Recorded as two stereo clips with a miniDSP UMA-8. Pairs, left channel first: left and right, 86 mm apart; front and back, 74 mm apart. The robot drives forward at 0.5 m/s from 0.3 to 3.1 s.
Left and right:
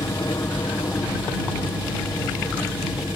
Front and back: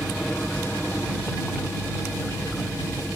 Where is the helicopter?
75° left; by 3.2 s 80° left.